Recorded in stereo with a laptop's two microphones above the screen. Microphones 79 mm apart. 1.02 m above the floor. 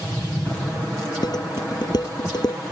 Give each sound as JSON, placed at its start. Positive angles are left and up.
{"t": 1.2, "sound": "dishes clattering", "side_deg": 60}